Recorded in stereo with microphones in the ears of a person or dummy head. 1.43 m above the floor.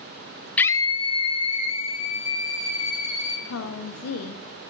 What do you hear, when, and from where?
0.6 s a scream: 10° left (ahead or behind), 0.6 m; by 3.4 s 40° left (ahead or behind), 4.5 m
3.5 s a woman speaking: 85° left, 0.8 m